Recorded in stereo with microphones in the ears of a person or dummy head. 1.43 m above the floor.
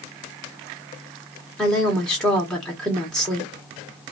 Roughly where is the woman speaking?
Centre.